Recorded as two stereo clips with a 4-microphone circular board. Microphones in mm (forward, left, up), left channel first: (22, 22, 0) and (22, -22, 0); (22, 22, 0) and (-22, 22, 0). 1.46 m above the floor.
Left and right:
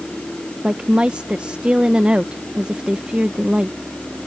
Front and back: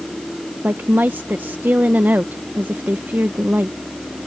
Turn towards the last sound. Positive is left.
turn(degrees=-150)